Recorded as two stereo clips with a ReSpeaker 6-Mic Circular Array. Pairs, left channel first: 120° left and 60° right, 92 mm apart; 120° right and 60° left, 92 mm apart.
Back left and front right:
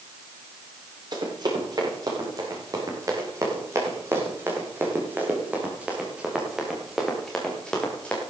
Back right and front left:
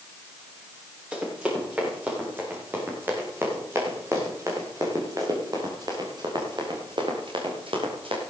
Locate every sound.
1.1 s running footsteps: 15° right, 10 m; by 8.2 s 45° left, 6 m